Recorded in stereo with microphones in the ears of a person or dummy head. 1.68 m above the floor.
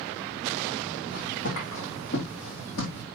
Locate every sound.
1.1 s footsteps: 70° left (ahead or behind), 5 m; by 3.0 s 55° left (ahead or behind), 3 m